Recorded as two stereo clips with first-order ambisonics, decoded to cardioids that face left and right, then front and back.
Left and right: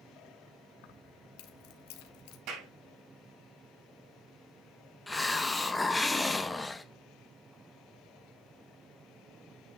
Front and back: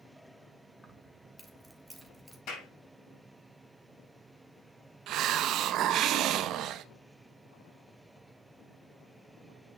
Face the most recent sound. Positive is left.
turn(degrees=165)